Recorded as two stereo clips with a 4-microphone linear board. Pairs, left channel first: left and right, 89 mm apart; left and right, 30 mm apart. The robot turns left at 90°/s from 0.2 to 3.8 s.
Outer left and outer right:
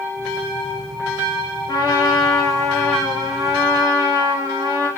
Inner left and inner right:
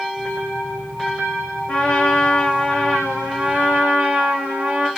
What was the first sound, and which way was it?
A trumpet, 120° left.